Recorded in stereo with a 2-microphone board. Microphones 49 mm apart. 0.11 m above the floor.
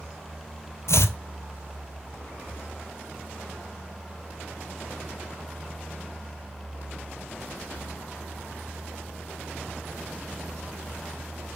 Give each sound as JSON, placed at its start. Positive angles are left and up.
{"t": 0.9, "sound": "chopping", "side_deg": 65, "distance_m": 0.5}